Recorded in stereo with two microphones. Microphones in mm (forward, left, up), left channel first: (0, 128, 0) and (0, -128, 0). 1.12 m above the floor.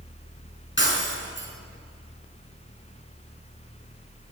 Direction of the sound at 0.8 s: 45° left (ahead or behind).